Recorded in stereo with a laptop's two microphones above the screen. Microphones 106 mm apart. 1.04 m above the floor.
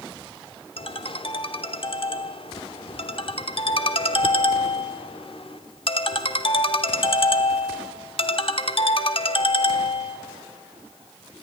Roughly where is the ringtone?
Left.